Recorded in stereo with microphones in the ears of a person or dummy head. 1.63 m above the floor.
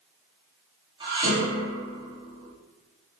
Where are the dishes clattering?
25° right (ahead or behind), 7 m.